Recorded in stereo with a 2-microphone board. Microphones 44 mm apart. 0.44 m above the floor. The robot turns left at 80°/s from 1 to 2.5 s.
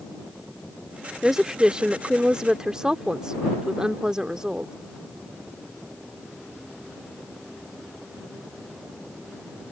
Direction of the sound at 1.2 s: 10° right (ahead or behind).